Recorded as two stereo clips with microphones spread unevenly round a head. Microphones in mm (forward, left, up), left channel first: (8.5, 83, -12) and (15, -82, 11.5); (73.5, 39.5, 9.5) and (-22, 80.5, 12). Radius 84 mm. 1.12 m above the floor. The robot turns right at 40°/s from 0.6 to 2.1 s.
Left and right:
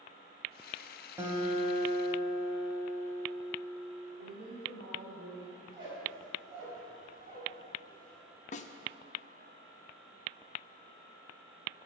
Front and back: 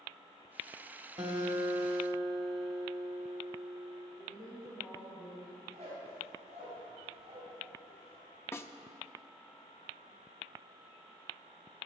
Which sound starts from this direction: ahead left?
A snare drum, at 8.5 s.